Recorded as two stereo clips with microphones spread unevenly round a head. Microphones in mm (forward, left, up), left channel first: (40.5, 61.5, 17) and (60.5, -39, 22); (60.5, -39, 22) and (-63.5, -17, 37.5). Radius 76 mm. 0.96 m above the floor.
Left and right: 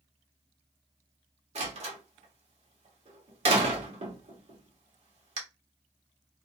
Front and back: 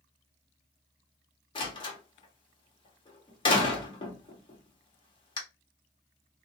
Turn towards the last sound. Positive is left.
turn(degrees=-60)